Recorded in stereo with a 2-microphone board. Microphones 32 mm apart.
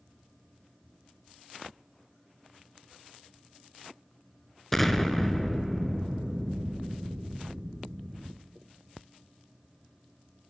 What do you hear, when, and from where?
4.7 s an explosion: 5° left (ahead or behind), 0.5 m